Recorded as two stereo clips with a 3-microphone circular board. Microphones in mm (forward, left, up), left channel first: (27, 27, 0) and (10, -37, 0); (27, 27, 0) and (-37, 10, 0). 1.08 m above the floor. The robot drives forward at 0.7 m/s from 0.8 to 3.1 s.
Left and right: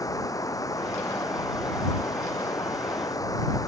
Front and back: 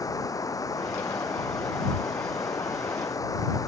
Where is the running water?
45° left.